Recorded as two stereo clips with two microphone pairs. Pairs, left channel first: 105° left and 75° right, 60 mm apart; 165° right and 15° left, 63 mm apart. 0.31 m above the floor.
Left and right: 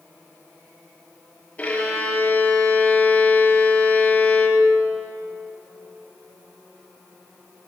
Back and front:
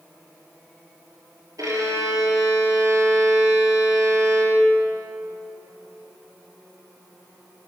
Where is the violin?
40° left, 5.5 m.